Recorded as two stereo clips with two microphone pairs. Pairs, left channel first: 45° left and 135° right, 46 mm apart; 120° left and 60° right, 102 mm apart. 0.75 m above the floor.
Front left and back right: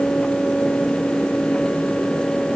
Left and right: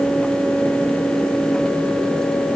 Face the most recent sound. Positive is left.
No sound to turn to.